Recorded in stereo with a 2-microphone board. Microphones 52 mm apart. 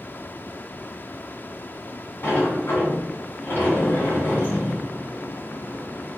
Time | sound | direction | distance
2.2 | a sliding door | 50° left (ahead or behind) | 1.7 m